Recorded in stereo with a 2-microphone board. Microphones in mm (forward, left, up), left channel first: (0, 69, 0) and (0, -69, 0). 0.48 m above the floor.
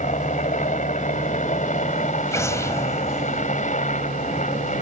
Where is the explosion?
20° left (ahead or behind).